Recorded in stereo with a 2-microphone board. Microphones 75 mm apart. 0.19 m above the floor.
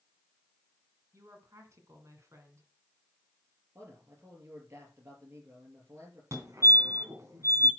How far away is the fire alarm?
About 2.5 m.